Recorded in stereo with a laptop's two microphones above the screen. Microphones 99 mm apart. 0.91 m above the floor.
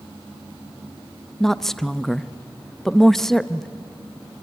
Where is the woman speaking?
5° left (ahead or behind), 0.7 m.